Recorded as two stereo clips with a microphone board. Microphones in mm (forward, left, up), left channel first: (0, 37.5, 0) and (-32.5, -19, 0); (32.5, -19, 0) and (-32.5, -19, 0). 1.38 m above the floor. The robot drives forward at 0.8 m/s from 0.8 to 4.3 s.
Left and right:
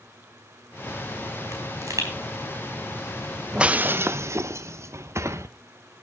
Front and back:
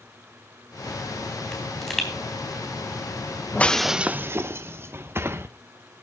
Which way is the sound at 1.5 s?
80° right.